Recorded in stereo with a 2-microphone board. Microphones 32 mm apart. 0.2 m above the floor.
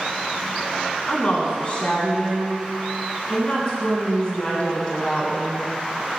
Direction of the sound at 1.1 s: 35° left (ahead or behind).